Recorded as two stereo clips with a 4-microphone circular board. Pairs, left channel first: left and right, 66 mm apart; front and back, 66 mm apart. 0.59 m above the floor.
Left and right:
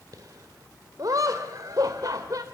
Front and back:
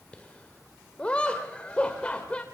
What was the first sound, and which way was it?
Laughter, 70° right.